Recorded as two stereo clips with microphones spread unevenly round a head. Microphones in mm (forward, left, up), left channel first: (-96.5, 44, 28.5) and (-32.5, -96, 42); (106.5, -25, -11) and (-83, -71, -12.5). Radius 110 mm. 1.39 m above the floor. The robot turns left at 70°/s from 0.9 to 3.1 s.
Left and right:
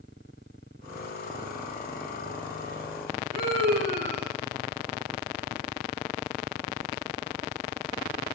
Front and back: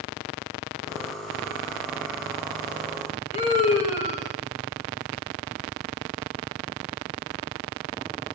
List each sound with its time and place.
3.3 s a scream: 40° right, 4.5 m